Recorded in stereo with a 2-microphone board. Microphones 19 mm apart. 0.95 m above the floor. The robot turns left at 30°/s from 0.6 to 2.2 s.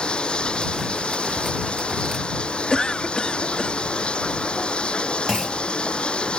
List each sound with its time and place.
0.0 s running water: 115° left; by 6.4 s 70° left
2.7 s a cough: 45° left (ahead or behind)
5.3 s a clunk: 25° right (ahead or behind)